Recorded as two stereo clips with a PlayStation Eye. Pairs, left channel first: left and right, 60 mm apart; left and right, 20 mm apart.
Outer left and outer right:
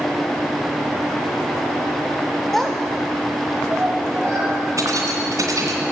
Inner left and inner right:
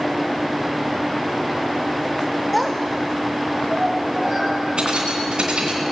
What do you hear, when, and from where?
2.5 s a child speaking: 5° left (ahead or behind), 0.7 m; by 4.6 s 35° right (ahead or behind), 2.5 m
4.8 s keys jangling: 65° right (ahead or behind), 2.5 m